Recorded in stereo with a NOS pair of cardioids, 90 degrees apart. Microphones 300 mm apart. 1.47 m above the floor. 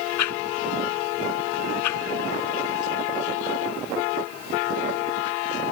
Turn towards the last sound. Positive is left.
turn(degrees=70)